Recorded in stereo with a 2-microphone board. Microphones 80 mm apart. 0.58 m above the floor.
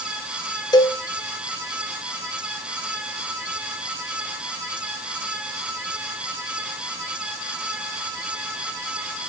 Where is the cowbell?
60° left (ahead or behind), 0.6 m.